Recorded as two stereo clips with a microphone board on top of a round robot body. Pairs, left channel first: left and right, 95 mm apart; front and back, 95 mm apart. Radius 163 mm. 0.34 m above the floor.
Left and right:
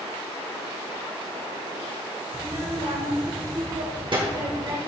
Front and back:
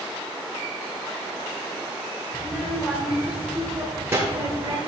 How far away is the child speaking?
About 1.9 m.